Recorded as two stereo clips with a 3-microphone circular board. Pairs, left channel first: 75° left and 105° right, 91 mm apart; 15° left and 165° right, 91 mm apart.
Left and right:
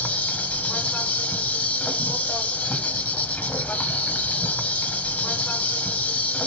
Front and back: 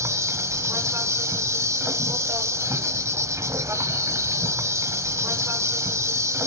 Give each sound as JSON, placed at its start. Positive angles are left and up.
{"t": 0.0, "sound": "an insect", "azimuth_deg": 140, "distance_m": 0.8}